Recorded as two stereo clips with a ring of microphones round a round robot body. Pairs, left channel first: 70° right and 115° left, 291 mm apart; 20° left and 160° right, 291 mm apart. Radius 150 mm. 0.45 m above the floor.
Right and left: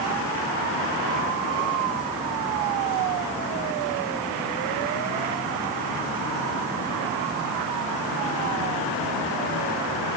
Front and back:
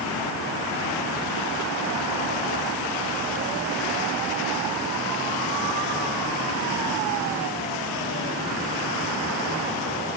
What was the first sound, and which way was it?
Only background noise.